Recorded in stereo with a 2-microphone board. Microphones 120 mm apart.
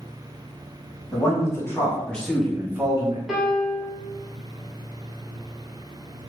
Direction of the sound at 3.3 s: Centre (ahead or behind).